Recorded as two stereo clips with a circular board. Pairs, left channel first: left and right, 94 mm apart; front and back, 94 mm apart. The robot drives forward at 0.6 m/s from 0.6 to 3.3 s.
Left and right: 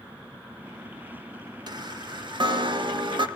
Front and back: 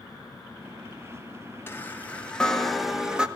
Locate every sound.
1.7 s a chime: 65° right, 1.7 m; by 3.3 s 100° right, 1.6 m